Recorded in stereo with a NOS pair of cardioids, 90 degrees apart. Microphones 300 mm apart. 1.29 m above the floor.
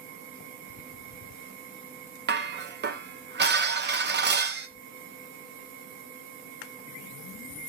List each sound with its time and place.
2.3 s dishes clattering: 35° right, 0.8 m